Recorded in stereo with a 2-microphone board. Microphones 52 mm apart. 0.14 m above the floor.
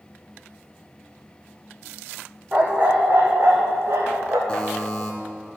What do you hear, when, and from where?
2.5 s a dog barking: 20° right (ahead or behind), 2 m; by 4.4 s 60° right (ahead or behind), 3.5 m
4.5 s a buzzer: 20° left (ahead or behind), 2 m